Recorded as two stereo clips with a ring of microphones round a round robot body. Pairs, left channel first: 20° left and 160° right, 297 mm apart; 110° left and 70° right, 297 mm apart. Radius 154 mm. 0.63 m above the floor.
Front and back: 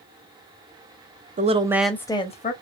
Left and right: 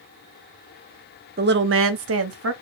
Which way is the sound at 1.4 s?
110° right.